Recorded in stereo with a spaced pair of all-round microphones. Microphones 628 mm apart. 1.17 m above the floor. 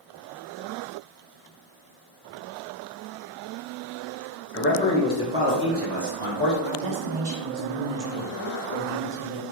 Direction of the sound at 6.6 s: 65° right (ahead or behind).